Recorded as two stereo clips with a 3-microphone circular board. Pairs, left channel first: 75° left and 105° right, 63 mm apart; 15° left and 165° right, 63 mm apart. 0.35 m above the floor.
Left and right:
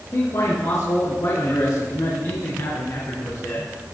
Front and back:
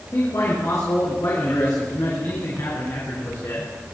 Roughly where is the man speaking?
Ahead left.